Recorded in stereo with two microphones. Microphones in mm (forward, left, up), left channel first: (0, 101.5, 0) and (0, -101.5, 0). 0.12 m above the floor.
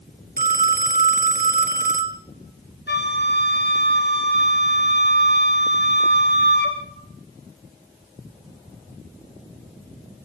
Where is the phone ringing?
45° right (ahead or behind), 1.1 m.